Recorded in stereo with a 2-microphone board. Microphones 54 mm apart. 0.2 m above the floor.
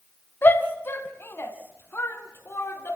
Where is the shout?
40° left (ahead or behind), 1.9 m; by 3.0 s 45° left (ahead or behind), 3.5 m.